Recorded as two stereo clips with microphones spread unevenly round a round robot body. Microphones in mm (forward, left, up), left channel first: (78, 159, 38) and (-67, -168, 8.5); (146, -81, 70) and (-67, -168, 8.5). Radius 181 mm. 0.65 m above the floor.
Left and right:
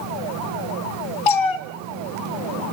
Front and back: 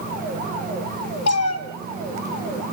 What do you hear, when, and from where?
1.3 s a cat meowing: 70° left, 1.2 m